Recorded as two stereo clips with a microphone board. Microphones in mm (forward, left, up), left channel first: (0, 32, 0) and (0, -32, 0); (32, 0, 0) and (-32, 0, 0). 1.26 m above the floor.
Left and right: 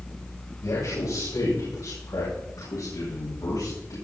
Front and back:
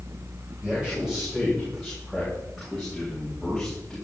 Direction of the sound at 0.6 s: 100° left.